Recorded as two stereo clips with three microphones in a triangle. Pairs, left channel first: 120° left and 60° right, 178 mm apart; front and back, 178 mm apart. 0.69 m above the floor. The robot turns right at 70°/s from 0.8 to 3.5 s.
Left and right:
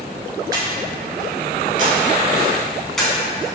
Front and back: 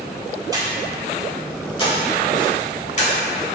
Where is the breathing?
120° right, 0.7 m; by 3.5 s 65° left, 0.7 m.